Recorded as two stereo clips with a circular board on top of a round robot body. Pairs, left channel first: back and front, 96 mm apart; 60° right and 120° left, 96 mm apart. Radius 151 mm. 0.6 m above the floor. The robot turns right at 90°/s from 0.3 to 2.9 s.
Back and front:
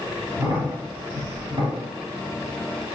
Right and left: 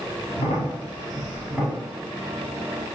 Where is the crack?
70° right, 1.1 m; by 1.8 s 60° left, 1.1 m.